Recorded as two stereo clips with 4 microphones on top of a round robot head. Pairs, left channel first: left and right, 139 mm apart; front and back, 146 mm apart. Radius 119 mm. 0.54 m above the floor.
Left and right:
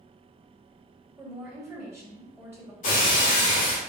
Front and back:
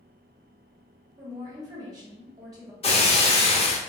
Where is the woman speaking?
145° right, 1.2 m.